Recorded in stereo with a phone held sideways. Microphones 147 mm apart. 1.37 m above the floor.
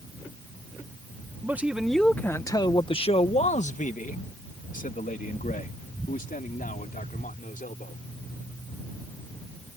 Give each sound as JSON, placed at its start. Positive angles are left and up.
{"t": 1.4, "sound": "a man speaking", "side_deg": -15}